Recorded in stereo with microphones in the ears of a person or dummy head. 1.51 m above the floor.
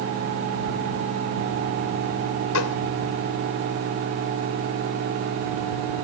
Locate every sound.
2.5 s a gunshot: 75° left (ahead or behind)